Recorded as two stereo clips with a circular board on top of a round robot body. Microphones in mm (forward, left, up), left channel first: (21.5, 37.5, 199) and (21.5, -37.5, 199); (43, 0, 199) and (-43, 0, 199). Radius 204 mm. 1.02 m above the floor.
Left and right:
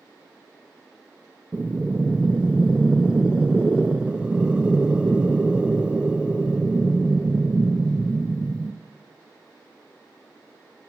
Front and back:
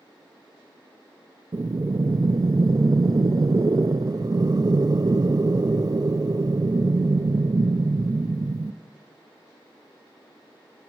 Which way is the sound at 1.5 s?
160° right.